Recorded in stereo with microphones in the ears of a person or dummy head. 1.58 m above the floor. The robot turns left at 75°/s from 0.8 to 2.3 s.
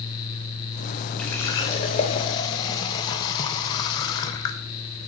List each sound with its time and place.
1.2 s a running tap: 5° left (ahead or behind), 0.6 m; by 4.6 s 25° left (ahead or behind), 0.6 m